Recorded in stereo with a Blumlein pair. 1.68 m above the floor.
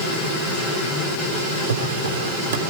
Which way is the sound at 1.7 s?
55° right.